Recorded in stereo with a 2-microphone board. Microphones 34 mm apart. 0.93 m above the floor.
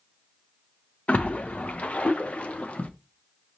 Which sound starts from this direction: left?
A splash, at 1.1 s.